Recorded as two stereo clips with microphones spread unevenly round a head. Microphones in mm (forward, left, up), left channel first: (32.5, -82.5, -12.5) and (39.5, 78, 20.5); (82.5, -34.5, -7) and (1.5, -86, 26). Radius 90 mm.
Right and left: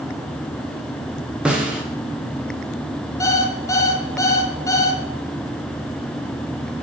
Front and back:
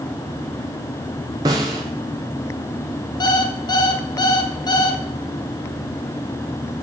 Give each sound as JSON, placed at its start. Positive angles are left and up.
{"t": 1.4, "sound": "a snare drum", "azimuth_deg": 165, "distance_m": 1.1}
{"t": 3.2, "sound": "an alarm clock", "azimuth_deg": -15, "distance_m": 1.4}